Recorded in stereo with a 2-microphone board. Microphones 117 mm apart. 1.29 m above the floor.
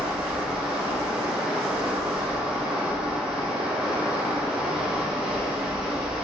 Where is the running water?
5° right (ahead or behind), 1.4 m.